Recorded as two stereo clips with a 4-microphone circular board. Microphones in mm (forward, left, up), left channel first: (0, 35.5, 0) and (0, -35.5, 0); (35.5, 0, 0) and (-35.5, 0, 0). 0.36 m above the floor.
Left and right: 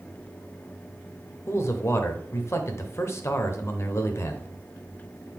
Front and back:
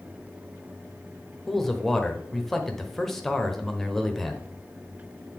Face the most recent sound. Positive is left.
turn(degrees=85)